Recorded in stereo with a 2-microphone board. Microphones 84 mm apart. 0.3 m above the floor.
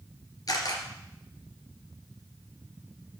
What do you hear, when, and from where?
0.5 s a camera shutter: 55° left (ahead or behind), 2.5 m